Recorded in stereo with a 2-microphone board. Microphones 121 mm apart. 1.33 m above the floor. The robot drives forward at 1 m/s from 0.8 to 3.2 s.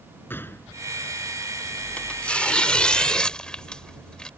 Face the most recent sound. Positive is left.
turn(degrees=5)  # may be behind; listen again after turning